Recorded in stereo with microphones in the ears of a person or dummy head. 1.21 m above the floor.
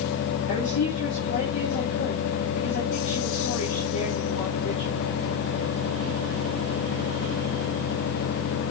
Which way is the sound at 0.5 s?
60° left (ahead or behind).